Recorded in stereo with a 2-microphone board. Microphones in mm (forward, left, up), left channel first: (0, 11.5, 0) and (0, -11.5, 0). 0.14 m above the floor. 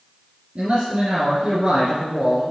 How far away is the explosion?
No explosion in this recording.